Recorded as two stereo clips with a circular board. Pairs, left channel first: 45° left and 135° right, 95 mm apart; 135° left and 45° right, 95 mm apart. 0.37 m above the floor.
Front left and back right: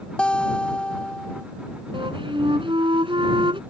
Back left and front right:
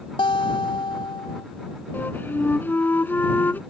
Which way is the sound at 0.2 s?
125° left.